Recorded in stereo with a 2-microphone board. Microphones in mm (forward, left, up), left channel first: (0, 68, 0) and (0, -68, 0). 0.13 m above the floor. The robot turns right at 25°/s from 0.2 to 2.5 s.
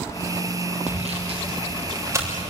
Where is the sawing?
55° right (ahead or behind), 6.5 m; by 2.4 s 15° right (ahead or behind), 6.5 m.